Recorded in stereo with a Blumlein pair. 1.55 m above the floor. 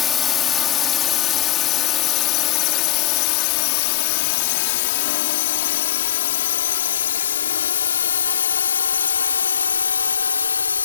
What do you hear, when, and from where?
0.0 s a drone: 25° left; by 10.8 s 75° left